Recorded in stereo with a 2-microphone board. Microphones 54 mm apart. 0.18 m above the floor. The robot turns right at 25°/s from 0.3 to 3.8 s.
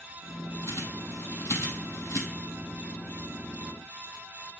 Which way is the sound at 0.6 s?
60° left (ahead or behind).